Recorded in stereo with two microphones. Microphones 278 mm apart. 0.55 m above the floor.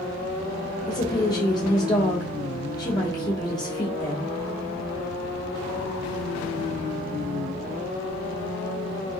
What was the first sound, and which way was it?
A woman speaking, 15° left (ahead or behind).